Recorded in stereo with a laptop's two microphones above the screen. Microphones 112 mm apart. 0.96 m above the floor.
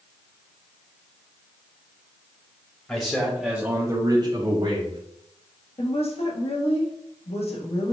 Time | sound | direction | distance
2.9 | a man speaking | 15° left (ahead or behind) | 1.3 m
5.8 | a woman speaking | 65° left (ahead or behind) | 1.2 m